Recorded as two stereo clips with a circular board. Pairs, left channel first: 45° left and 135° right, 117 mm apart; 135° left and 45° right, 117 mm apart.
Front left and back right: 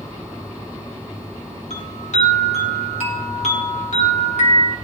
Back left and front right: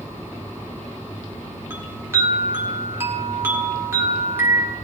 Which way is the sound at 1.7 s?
25° left.